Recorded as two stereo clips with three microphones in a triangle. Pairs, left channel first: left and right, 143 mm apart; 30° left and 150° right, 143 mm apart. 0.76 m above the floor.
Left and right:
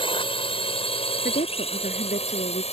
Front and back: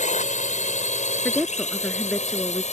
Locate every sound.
0.0 s a drone: 45° left; by 2.7 s 55° left
1.2 s a woman speaking: 115° left